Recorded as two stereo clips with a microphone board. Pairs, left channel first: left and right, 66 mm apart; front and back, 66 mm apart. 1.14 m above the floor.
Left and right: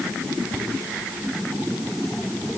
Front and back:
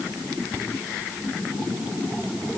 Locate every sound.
Only background noise.